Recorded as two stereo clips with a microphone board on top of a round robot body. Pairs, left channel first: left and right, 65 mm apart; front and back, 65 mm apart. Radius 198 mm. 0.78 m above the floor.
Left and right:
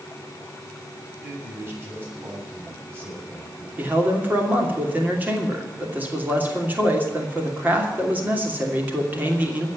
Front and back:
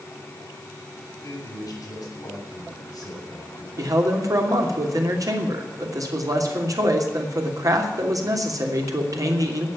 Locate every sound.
1.2 s a man speaking: 30° right, 7 m
3.8 s a man speaking: 155° right, 3 m